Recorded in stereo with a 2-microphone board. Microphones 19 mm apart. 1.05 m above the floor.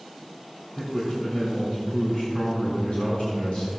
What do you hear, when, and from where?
0.8 s a man speaking: 65° left (ahead or behind), 3.5 m